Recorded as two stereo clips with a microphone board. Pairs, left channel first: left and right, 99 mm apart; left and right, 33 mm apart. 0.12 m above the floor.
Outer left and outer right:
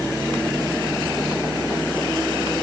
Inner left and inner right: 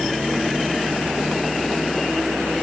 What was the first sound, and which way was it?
Only background noise.